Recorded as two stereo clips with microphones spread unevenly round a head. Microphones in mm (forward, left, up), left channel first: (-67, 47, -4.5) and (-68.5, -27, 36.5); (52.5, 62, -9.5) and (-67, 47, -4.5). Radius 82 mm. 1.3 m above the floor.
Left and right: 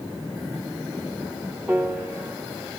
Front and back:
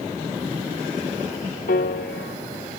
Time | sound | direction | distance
1.7 | a piano | 5° right | 1.4 m